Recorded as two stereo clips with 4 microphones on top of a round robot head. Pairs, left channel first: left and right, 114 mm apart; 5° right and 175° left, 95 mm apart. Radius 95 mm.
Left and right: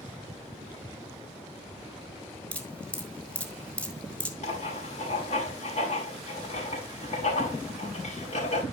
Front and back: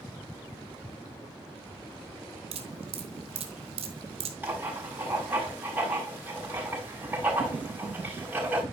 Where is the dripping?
170° left, 1.6 m.